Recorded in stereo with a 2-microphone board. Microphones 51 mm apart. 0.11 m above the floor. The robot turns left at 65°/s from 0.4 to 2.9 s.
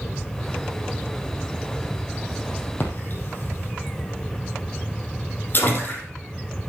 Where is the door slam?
No door slam in this recording.